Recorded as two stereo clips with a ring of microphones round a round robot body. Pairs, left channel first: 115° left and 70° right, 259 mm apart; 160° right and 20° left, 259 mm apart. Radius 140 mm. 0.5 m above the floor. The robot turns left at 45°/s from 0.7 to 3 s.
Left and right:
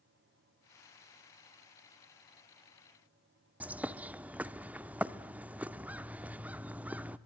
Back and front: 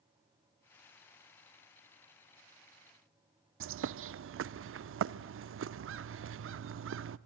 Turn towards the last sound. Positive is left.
turn(degrees=15)